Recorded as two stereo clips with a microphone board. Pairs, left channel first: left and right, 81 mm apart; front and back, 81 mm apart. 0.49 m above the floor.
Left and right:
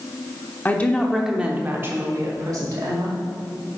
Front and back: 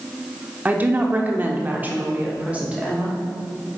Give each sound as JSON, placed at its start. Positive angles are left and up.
{"t": 0.7, "sound": "a woman speaking", "azimuth_deg": 130, "distance_m": 1.0}